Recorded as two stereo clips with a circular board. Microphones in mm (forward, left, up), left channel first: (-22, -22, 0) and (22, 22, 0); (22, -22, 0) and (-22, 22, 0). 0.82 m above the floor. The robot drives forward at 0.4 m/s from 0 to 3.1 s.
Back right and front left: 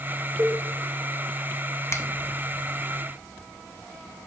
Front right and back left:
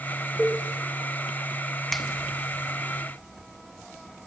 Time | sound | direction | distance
0.4 | a cowbell | 40° left | 3.5 m
1.9 | a finger snap | 130° right | 0.8 m